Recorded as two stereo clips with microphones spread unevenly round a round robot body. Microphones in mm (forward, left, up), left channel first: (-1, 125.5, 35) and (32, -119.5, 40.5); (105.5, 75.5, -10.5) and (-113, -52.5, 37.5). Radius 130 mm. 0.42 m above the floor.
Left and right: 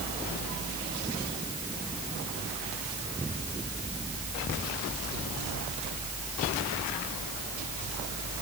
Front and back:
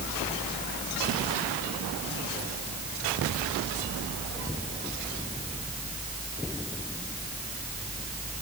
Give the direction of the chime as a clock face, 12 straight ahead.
I don't hear a chime.